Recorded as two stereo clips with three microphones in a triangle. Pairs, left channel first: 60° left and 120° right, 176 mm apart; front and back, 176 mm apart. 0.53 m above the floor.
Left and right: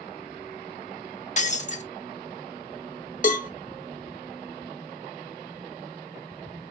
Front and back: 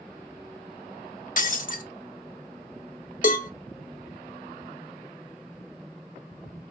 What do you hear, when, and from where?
1.4 s breaking glass: 25° left, 0.7 m
3.2 s a cowbell: 30° left, 0.7 m